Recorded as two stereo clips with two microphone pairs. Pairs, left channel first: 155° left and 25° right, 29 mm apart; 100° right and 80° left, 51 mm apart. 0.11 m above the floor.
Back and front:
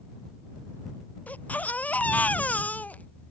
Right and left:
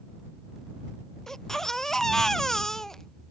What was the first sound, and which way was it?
A baby crying, 175° left.